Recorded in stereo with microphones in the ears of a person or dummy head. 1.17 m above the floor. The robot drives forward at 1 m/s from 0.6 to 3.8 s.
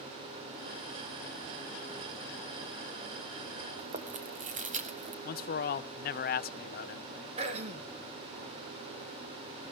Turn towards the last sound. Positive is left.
turn(degrees=-30)  # may be behind; listen again after turning